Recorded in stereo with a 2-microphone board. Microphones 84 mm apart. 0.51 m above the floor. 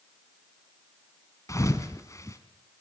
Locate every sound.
1.5 s a thud: 40° left (ahead or behind), 1.9 m